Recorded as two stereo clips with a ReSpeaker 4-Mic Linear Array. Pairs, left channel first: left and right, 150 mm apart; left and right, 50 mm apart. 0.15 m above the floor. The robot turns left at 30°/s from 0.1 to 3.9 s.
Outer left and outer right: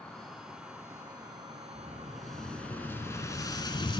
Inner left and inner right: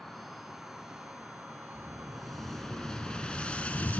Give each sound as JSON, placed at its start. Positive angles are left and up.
{"t": 0.0, "sound": "an insect", "azimuth_deg": 5, "distance_m": 1.7}
{"t": 1.8, "sound": "an explosion", "azimuth_deg": -165, "distance_m": 0.8}